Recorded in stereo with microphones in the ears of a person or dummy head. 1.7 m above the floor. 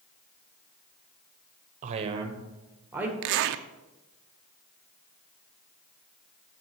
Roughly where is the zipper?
Right.